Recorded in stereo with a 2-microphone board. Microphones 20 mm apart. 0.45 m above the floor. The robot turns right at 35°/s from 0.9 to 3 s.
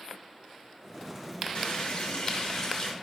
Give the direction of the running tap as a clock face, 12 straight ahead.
9 o'clock.